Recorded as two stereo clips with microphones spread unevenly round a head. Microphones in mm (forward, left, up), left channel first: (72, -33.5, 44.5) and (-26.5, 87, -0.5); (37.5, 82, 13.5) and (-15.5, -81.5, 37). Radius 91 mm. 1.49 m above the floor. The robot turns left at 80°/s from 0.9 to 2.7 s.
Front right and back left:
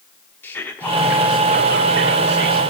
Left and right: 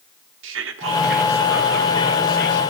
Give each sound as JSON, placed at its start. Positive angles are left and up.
{"t": 0.4, "sound": "whispering", "azimuth_deg": -130, "distance_m": 0.8}